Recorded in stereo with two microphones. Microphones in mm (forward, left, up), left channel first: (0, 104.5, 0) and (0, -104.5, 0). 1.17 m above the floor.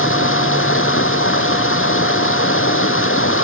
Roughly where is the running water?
Left.